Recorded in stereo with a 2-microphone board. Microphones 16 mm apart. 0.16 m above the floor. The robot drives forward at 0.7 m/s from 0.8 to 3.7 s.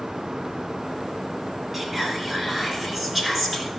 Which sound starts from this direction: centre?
Whispering, at 1.7 s.